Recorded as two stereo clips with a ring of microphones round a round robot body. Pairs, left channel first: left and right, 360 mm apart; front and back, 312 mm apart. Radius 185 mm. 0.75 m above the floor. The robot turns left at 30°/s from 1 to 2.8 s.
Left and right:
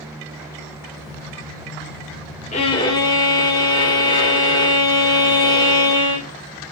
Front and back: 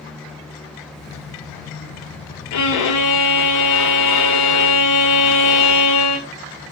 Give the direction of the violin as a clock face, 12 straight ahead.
11 o'clock.